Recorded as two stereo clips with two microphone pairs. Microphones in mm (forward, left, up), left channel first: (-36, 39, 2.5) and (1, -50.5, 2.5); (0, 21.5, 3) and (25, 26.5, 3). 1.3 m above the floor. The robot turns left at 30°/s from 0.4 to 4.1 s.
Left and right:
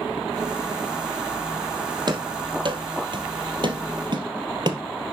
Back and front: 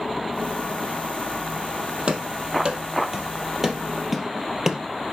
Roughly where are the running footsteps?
Ahead right.